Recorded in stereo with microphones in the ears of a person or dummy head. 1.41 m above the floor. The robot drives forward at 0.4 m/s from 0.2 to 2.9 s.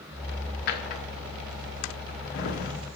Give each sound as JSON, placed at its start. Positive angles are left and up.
{"t": 0.7, "sound": "a drawer", "side_deg": 55, "distance_m": 1.3}